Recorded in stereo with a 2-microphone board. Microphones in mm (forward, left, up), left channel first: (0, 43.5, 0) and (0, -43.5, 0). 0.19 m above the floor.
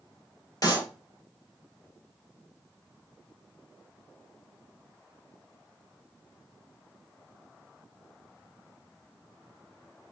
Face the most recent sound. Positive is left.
turn(degrees=45)  # may be behind; listen again after turning